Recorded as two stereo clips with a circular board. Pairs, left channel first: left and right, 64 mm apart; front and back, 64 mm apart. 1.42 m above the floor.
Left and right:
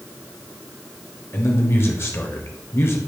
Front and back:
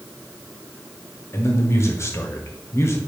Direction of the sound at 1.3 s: 45° left.